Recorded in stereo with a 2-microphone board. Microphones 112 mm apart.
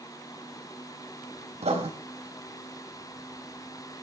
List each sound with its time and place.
1.6 s writing: 70° right (ahead or behind), 4 m